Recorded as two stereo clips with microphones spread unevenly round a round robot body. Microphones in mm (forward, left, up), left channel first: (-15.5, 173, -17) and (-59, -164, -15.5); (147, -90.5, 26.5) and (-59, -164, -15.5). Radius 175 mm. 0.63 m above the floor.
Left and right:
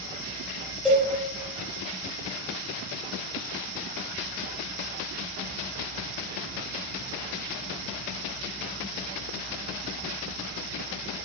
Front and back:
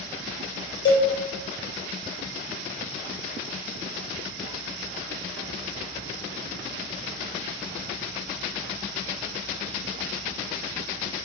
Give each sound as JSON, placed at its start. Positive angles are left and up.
{"t": 0.8, "sound": "a cowbell", "azimuth_deg": -5, "distance_m": 0.7}